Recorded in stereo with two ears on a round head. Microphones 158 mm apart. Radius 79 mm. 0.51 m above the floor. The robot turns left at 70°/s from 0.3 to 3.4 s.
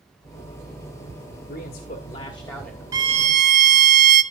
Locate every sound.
1.5 s a man speaking: 90° left, 1.9 m; by 2.8 s 5° right, 1.9 m
2.9 s a violin: 20° right, 1.0 m; by 4.2 s 55° right, 1.0 m